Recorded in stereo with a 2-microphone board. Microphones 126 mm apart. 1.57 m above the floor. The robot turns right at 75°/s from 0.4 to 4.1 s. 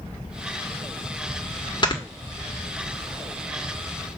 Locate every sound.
1.8 s snoring: 35° left (ahead or behind), 1.5 m; by 2.0 s 40° left (ahead or behind), 1.5 m